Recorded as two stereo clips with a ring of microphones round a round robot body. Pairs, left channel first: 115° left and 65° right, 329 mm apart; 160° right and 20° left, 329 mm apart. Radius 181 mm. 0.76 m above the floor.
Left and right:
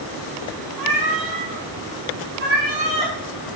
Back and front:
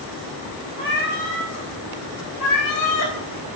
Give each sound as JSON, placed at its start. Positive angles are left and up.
{"t": 0.8, "sound": "a cat meowing", "azimuth_deg": -90, "distance_m": 1.7}